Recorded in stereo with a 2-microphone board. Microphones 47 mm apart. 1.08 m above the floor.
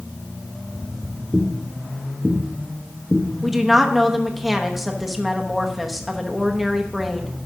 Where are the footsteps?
65° right (ahead or behind), 2.5 m; by 3.2 s 15° left (ahead or behind), 3 m.